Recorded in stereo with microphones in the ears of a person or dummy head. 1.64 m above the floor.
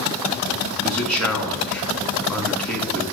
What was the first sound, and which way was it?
A man speaking, 5° left (ahead or behind).